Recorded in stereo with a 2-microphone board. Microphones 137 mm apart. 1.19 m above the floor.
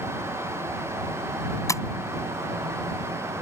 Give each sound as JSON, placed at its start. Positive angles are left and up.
{"t": 1.7, "sound": "tapping", "side_deg": 20}